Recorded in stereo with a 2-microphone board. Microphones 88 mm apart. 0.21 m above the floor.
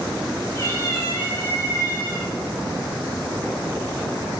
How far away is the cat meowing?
About 3 m.